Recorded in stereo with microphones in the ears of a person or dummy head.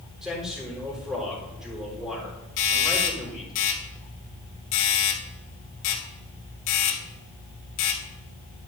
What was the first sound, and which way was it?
A man speaking, 5° right (ahead or behind).